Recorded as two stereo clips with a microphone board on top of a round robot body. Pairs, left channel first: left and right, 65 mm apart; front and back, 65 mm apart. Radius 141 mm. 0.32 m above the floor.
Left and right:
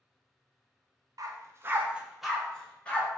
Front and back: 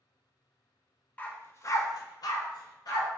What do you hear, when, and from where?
1.2 s a dog barking: 70° right, 0.5 m; by 3.1 s 20° left, 1.0 m